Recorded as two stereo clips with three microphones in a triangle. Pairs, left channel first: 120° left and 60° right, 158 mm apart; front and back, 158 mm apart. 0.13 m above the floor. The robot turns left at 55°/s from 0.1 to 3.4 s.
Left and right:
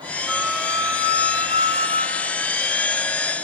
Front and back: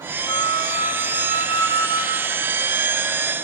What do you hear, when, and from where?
0.3 s a flute: 30° left, 1.8 m; by 2.4 s 85° right, 1.8 m